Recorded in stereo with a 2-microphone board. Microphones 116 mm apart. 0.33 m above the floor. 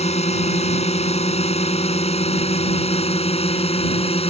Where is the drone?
65° left (ahead or behind); by 4.3 s 60° left (ahead or behind).